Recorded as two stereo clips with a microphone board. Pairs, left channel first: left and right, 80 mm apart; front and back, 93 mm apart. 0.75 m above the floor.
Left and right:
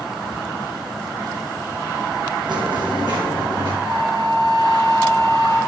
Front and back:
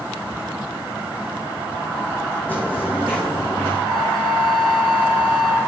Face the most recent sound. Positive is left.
turn(degrees=-80)